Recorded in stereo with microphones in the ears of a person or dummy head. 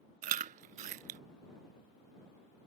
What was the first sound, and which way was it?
Chewing, 40° right (ahead or behind).